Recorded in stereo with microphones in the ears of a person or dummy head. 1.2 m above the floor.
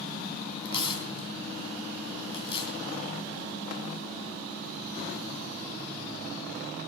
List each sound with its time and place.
0.7 s tearing paper: 35° left (ahead or behind), 2.5 m